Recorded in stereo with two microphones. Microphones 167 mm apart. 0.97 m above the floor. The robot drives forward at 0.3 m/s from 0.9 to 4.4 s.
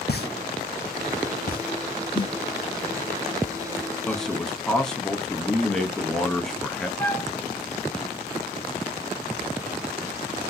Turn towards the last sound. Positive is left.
turn(degrees=10)  # may be behind; listen again after turning